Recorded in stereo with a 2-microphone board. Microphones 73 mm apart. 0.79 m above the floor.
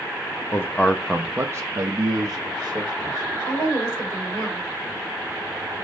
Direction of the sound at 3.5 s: 45° left (ahead or behind).